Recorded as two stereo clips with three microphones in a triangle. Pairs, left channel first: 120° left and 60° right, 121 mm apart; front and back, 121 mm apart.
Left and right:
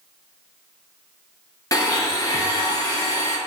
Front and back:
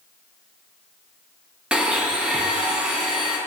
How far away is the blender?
About 0.6 m.